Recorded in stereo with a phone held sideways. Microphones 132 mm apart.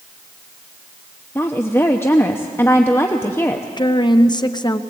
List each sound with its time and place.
1.4 s a woman speaking: 15° left (ahead or behind), 0.9 m
3.8 s a woman speaking: 35° left (ahead or behind), 0.8 m